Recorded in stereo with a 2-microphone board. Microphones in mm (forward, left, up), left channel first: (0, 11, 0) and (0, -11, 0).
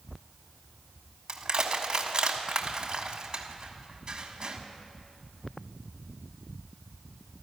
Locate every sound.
1.3 s crushing: 45° right (ahead or behind), 1.3 m